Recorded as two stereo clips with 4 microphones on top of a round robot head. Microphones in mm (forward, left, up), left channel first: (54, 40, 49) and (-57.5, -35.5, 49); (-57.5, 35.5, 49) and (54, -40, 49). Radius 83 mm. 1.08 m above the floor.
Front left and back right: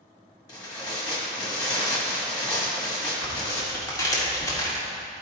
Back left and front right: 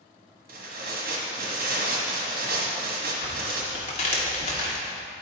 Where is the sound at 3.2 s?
100° left, 1.5 m.